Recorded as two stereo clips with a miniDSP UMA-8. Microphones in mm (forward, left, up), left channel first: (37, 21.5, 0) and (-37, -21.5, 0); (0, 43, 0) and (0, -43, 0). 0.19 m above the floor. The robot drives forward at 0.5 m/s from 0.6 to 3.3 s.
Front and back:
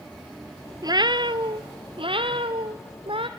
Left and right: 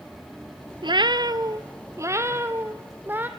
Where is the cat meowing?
110° right, 0.6 m; by 3.3 s 160° right, 1.6 m.